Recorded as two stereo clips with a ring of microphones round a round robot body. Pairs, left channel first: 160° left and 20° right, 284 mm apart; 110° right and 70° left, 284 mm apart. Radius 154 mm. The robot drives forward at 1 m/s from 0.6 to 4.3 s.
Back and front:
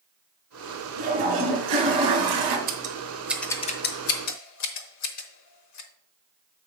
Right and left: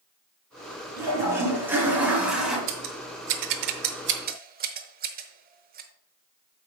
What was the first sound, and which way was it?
A toilet flushing, 15° right.